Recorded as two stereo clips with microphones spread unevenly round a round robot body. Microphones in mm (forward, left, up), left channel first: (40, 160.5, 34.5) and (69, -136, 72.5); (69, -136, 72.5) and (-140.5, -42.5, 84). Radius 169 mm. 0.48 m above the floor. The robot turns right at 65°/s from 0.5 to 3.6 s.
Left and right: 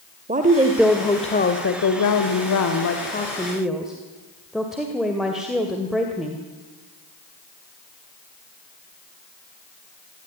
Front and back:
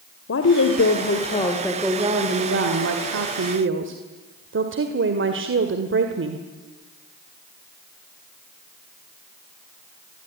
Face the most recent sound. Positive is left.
turn(degrees=-175)